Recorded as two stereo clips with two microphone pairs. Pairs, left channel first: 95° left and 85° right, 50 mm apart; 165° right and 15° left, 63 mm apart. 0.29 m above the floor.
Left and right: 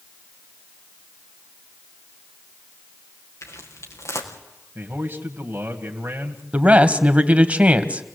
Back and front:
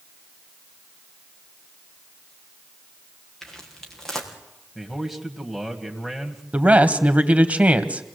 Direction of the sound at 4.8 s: 65° right.